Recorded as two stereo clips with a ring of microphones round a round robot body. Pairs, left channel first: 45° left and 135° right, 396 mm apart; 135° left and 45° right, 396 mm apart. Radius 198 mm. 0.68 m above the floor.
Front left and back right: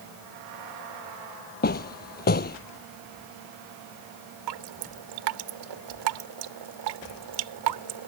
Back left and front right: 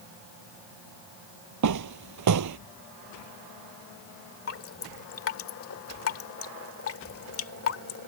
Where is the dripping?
165° right.